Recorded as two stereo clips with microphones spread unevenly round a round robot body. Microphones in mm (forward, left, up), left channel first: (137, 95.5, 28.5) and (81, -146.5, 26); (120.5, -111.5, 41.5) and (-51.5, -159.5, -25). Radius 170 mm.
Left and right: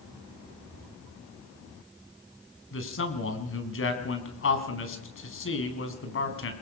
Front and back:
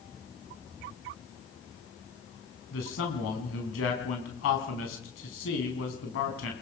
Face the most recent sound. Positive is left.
turn(degrees=40)